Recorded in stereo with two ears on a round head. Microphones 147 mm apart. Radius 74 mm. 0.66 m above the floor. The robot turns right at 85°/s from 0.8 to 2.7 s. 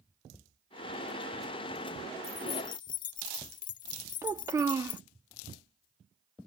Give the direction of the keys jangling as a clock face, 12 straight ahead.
12 o'clock.